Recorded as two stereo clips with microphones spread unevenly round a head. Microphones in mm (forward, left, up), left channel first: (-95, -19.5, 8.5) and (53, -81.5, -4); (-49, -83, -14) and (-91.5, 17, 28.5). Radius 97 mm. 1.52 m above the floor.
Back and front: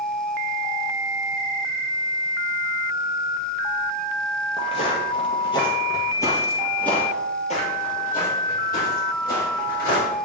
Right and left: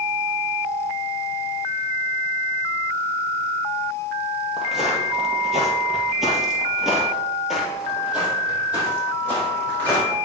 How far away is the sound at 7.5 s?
About 2.5 m.